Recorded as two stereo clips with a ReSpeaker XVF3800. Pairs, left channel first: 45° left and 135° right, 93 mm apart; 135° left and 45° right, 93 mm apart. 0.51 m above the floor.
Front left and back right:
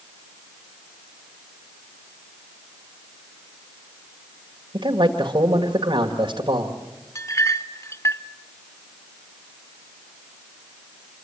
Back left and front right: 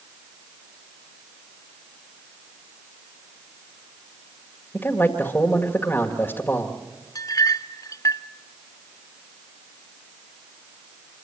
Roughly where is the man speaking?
Behind.